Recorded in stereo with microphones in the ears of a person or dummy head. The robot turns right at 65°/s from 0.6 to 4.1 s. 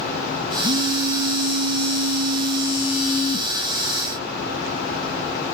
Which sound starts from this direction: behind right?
A phone buzzing, at 0.6 s.